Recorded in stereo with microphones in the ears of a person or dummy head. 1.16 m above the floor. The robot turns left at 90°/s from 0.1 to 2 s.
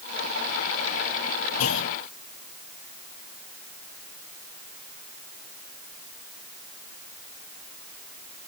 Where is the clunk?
90° left; by 2.0 s 60° left.